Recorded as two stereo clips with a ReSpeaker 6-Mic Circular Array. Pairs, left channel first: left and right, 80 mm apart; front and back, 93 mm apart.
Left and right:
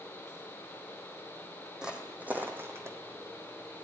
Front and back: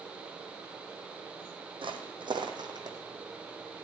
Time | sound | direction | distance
1.8 | footsteps | 170° right | 1.7 m